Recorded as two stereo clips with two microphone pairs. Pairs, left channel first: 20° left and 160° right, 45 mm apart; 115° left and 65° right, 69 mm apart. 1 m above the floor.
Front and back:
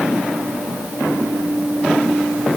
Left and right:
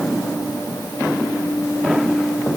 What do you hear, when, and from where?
Only background noise.